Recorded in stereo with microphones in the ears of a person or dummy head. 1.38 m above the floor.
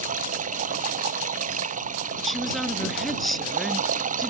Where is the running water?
45° right (ahead or behind).